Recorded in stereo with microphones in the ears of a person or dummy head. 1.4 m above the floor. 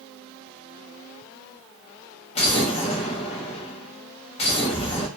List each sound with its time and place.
2.4 s an explosion: 35° left (ahead or behind), 0.7 m